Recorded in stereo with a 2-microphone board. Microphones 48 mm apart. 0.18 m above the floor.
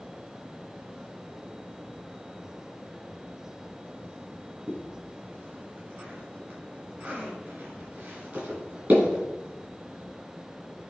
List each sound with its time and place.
4.7 s a zipper: 45° right (ahead or behind), 3 m